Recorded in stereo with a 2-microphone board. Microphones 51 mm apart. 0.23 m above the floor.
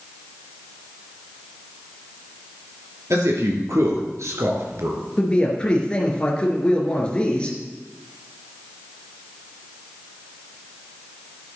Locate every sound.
3.1 s a man speaking: 70° right (ahead or behind), 4 m; by 5.0 s 65° right (ahead or behind), 2.5 m
5.2 s a man speaking: 20° left (ahead or behind), 3 m